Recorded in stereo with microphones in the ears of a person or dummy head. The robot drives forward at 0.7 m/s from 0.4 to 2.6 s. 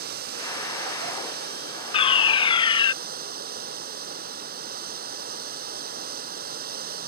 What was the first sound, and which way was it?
Running water, 55° right (ahead or behind).